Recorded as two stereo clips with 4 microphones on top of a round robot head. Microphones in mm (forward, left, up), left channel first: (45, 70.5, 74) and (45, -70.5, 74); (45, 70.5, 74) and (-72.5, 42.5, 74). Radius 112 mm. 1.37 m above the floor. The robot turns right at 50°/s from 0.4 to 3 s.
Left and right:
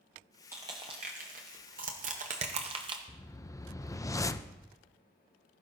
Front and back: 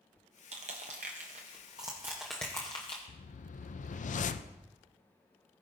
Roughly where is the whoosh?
Ahead.